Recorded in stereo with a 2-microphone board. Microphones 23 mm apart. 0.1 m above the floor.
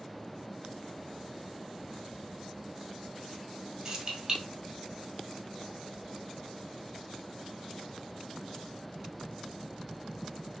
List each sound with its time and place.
3.9 s keys jangling: 30° right (ahead or behind), 1.9 m